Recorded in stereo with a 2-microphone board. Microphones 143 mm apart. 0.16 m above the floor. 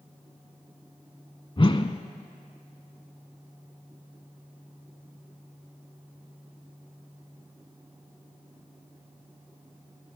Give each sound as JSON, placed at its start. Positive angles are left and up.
{"t": 1.6, "sound": "a whoosh", "side_deg": 40, "distance_m": 0.6}